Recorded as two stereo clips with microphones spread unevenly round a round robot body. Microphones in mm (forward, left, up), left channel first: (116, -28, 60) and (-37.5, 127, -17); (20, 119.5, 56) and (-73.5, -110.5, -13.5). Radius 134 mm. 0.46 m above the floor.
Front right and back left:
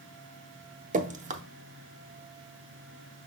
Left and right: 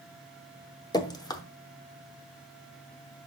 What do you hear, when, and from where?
0.9 s dripping: 155° left, 0.9 m